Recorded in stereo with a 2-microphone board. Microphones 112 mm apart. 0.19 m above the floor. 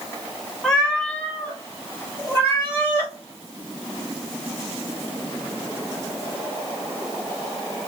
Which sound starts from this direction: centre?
A cat meowing, at 0.6 s.